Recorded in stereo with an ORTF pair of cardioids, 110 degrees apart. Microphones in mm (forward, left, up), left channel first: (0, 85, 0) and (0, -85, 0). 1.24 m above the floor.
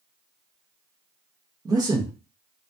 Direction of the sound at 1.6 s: 25° right.